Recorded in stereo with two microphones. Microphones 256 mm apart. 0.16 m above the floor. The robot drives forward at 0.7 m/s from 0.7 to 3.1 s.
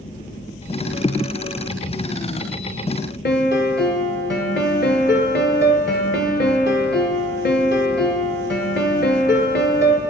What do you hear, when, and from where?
3.2 s a piano: 45° left (ahead or behind), 0.9 m